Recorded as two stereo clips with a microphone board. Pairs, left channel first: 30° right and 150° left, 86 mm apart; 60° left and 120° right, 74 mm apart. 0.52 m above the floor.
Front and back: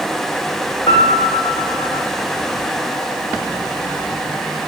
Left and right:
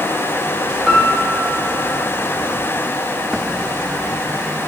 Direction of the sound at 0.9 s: 35° right.